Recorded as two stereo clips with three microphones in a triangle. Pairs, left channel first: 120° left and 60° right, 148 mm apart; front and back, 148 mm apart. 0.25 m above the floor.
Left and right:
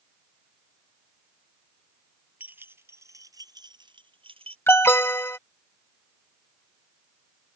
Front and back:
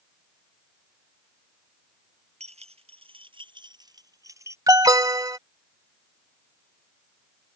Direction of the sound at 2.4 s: 140° right.